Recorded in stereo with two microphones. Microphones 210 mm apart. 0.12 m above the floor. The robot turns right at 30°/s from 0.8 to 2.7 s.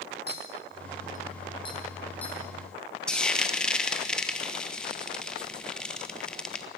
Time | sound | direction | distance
0.3 | a clink | 45° left (ahead or behind) | 3.5 m
3.1 | frying | 5° left (ahead or behind) | 1.6 m